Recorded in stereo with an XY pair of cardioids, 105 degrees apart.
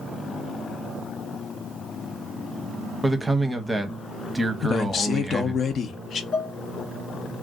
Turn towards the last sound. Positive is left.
turn(degrees=55)